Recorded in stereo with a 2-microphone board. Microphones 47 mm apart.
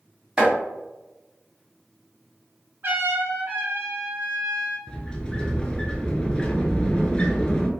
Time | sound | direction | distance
0.4 | chopping | 20° right (ahead or behind) | 1.5 m
2.8 | a trumpet | 45° right (ahead or behind) | 1.0 m
4.9 | a sliding door | 20° left (ahead or behind) | 0.6 m